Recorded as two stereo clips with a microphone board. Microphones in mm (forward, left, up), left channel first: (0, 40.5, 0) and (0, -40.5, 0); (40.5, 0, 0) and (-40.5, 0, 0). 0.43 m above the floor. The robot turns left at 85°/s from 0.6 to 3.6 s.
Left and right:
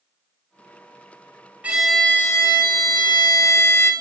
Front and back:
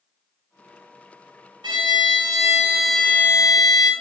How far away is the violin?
About 0.8 m.